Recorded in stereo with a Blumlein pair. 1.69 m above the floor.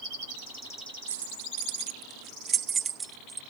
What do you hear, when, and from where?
1.1 s keys jangling: 65° right; by 3.4 s 10° right